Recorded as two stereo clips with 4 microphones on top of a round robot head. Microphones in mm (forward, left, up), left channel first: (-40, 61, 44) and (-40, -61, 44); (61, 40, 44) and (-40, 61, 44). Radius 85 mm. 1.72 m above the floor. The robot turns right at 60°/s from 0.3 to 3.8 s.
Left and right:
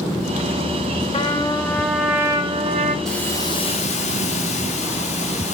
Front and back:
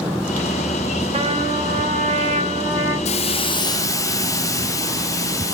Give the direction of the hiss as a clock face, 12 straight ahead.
12 o'clock.